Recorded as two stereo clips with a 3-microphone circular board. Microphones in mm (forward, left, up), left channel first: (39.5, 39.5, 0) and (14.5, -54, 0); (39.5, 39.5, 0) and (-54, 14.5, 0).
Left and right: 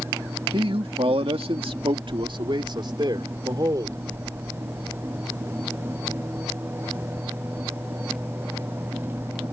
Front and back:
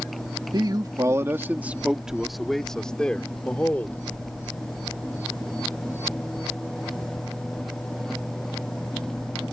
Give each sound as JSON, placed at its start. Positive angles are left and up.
{"t": 0.5, "sound": "a man speaking", "azimuth_deg": -125}